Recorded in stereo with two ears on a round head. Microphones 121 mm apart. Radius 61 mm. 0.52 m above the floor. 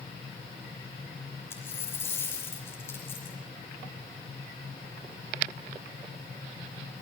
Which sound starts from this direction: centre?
A dropped coin, at 1.5 s.